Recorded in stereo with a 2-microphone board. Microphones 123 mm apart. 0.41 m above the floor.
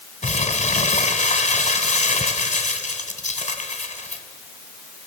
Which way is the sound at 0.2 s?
80° left.